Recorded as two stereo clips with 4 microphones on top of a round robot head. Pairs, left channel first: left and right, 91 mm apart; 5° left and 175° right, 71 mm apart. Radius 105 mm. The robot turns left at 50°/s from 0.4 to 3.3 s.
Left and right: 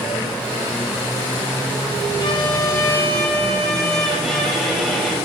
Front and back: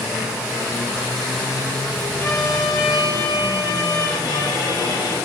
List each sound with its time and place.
2.2 s a violin: 60° left, 3 m; by 5.1 s straight ahead, 3 m